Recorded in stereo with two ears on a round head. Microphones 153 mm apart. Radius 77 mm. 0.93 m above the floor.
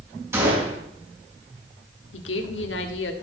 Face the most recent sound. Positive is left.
turn(degrees=80)